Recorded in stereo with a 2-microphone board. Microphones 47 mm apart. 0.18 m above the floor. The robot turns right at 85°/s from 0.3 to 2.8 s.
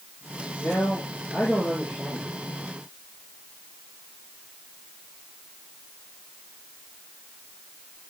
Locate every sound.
0.6 s a man speaking: 95° left, 6 m; by 2.3 s 115° right, 6 m